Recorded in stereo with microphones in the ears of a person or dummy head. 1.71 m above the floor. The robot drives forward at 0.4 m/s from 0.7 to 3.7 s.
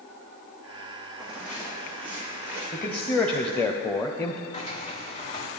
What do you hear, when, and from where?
1.2 s footsteps: centre (ahead or behind), 3.5 m; by 2.6 s 10° right (ahead or behind), 3.5 m
2.7 s a man speaking: 5° left (ahead or behind), 0.9 m; by 4.4 s 10° left (ahead or behind), 0.5 m
4.5 s a sliding door: 35° left (ahead or behind), 1.3 m